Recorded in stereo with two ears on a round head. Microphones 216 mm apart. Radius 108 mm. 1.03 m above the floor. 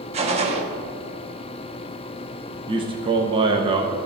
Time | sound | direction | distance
0.1 | a gunshot | 25° right (ahead or behind) | 1.0 m
2.7 | a man speaking | 20° right (ahead or behind) | 0.7 m